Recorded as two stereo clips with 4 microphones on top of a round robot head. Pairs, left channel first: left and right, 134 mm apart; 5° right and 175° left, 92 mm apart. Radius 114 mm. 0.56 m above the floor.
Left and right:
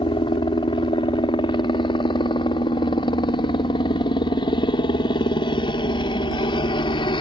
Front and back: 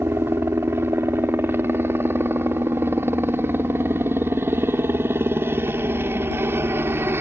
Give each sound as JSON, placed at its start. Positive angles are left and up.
{"t": 0.0, "sound": "a helicopter", "azimuth_deg": 125}